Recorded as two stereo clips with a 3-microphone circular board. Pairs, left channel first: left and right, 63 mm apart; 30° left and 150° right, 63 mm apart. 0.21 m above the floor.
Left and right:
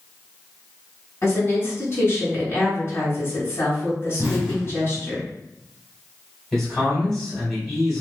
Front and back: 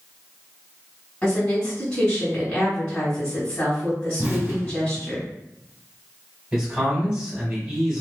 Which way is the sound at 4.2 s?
145° right.